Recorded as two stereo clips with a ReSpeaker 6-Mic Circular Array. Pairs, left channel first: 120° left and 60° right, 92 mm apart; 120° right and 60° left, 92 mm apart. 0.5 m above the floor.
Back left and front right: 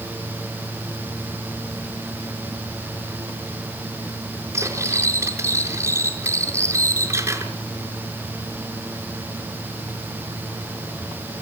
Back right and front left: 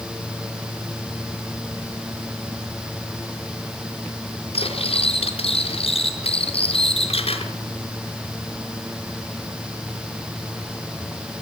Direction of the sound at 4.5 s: 120° right.